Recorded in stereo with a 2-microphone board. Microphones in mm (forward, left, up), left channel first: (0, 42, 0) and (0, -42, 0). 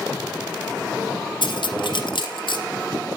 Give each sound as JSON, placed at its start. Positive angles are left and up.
{"t": 1.4, "sound": "cutlery clinking", "side_deg": 70, "distance_m": 2.5}